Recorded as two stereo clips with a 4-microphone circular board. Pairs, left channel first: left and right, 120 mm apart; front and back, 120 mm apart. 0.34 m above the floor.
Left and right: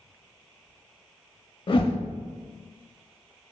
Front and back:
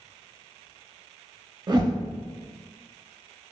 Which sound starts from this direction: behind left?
A whoosh, at 1.7 s.